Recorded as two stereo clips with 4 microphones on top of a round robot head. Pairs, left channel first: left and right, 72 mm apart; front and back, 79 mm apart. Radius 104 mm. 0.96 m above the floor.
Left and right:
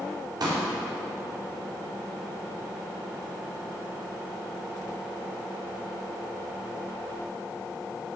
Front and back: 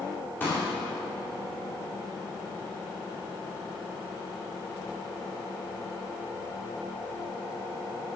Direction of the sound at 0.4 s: 70° right.